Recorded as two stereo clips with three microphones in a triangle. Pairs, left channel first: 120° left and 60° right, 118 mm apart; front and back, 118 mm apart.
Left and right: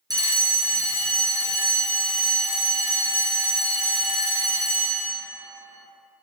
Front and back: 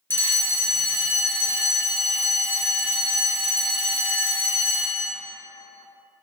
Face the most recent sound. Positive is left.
turn(degrees=-55)